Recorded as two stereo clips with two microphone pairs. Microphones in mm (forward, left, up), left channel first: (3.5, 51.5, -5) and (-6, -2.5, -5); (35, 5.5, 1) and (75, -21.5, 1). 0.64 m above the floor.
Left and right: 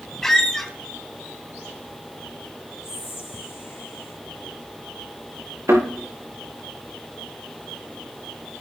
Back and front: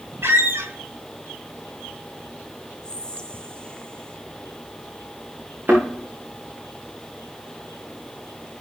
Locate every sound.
0.2 s a squeak: straight ahead, 2.5 m
2.8 s whispering: 80° left, 1.9 m
5.7 s a thud: 85° right, 6.5 m